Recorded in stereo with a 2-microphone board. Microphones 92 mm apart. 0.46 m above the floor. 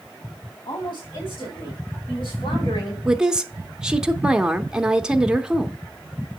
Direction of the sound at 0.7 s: 55° left (ahead or behind).